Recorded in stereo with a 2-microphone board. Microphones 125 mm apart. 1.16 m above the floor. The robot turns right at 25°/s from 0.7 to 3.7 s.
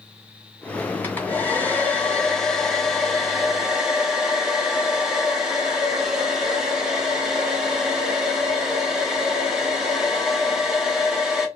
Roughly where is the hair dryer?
Centre.